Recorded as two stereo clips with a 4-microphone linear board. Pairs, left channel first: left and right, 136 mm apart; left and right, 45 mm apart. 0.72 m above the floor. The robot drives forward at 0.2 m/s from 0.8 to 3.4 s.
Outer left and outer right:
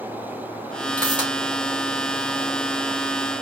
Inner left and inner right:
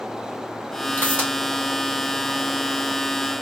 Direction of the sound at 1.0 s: 35° right (ahead or behind).